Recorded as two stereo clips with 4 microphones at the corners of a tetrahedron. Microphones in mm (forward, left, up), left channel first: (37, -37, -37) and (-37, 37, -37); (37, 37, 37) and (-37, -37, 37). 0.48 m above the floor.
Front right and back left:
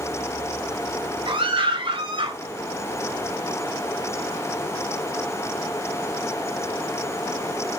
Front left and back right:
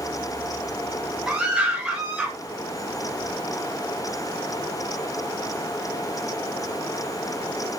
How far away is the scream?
About 2.5 m.